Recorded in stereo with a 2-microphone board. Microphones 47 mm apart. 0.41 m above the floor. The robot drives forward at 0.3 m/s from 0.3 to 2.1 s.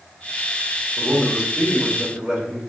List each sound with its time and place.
1.0 s a man speaking: 15° right (ahead or behind), 1.1 m